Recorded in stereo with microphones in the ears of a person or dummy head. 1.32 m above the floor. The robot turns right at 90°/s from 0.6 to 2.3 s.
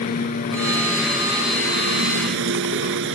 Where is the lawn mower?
135° left; by 3.2 s 75° right.